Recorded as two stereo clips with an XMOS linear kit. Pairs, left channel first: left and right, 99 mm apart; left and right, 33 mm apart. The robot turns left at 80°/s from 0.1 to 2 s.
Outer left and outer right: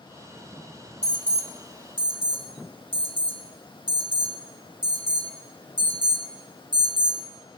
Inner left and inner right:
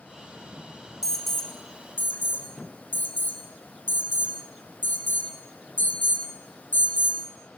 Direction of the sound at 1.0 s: 10° right (ahead or behind).